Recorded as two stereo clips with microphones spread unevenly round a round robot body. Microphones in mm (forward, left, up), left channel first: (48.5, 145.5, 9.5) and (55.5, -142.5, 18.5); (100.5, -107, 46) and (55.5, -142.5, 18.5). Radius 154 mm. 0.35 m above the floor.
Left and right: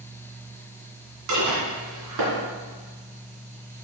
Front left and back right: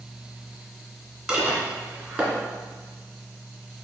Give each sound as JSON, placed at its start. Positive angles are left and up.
{"t": 1.3, "sound": "dishes clattering", "azimuth_deg": -75, "distance_m": 2.0}